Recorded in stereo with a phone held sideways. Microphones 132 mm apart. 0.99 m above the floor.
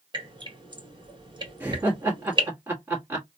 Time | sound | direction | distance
0.1 | dripping | 35° right (ahead or behind) | 1.8 m
1.6 | laughter | 15° right (ahead or behind) | 1.5 m